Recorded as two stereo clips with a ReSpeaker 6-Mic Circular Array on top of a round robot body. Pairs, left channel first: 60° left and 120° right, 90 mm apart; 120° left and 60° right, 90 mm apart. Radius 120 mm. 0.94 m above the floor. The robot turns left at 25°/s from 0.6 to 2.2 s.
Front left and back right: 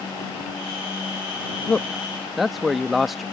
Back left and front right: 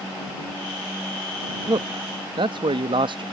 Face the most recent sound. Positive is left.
turn(degrees=-30)